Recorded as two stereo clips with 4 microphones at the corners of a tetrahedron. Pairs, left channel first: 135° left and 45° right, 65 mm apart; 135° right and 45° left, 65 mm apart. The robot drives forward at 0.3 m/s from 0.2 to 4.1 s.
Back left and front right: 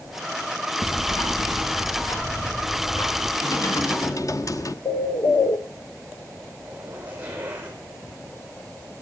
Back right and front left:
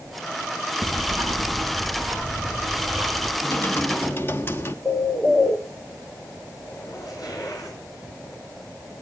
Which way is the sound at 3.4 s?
165° left.